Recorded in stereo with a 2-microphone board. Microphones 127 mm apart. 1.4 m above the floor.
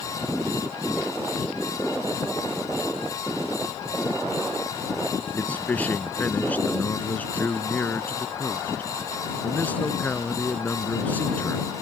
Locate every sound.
5.3 s a man speaking: 10° left (ahead or behind)